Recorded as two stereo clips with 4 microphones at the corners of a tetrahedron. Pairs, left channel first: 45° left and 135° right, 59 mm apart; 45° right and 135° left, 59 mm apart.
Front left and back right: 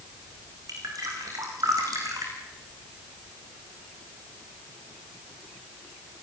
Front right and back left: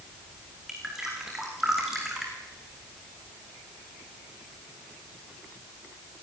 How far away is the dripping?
About 5.5 m.